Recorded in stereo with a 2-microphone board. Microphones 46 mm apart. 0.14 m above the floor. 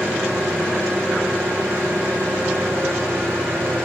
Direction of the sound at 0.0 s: 55° right (ahead or behind).